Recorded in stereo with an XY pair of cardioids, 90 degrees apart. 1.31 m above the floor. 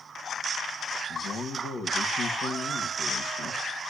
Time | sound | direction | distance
1.1 | a man speaking | 70° left | 1.8 m